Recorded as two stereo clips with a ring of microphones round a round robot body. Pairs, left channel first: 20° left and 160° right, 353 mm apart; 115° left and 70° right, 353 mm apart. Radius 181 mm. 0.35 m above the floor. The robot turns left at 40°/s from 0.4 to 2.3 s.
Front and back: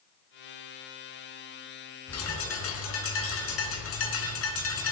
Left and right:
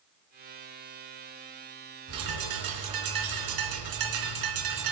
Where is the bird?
25° right, 3 m; by 4.9 s 35° right, 3 m.